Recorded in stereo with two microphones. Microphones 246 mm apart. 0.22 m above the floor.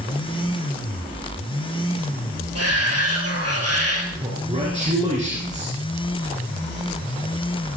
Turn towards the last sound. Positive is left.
turn(degrees=-30)  # may be behind; listen again after turning